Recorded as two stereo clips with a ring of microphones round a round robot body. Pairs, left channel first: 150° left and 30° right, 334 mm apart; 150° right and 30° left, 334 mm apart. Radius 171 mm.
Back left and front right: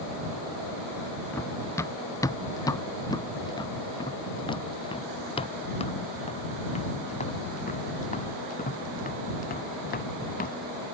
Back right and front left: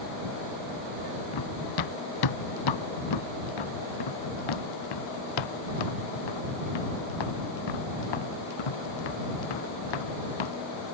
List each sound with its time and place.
1.3 s running footsteps: 125° right; by 10.6 s 145° right